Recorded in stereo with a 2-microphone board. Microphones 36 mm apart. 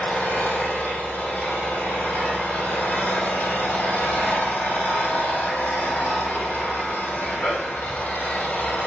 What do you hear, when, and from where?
0.0 s an engine running: 60° left (ahead or behind), 4 m